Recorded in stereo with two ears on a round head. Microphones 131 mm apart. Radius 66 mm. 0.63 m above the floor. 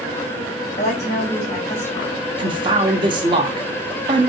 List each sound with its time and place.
0.8 s a woman speaking: 50° left (ahead or behind), 2.5 m
2.4 s a man speaking: 30° right (ahead or behind), 0.9 m